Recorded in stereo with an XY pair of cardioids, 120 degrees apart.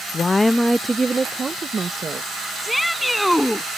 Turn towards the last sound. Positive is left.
turn(degrees=5)